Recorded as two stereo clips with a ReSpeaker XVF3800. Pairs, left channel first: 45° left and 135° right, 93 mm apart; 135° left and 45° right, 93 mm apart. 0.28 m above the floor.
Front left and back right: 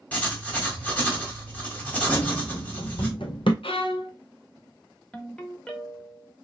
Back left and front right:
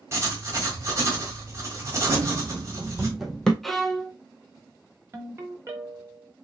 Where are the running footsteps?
10° right, 0.7 m; by 3.5 s 55° left, 0.8 m.